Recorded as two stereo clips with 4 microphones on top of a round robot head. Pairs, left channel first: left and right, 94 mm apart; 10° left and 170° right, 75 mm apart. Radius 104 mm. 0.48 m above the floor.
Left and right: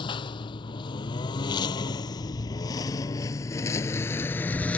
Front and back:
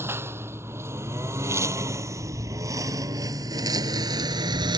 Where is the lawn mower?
130° left; by 4.8 s 170° left.